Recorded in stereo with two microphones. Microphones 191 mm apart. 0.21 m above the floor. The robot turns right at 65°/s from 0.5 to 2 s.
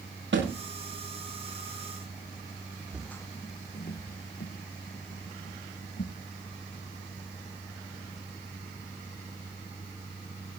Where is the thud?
85° right, 9.5 m; by 0.6 s 90° right, 9.5 m.